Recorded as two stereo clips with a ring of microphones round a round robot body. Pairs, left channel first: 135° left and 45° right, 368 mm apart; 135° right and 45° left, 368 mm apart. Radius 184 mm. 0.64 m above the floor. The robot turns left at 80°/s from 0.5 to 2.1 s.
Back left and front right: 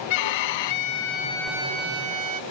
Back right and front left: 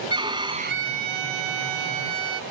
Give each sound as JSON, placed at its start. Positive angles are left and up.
{"t": 0.1, "sound": "a violin", "azimuth_deg": 125}